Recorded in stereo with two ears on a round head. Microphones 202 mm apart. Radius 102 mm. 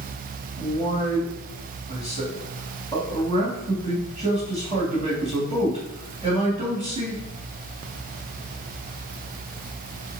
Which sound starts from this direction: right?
A man speaking, at 0.6 s.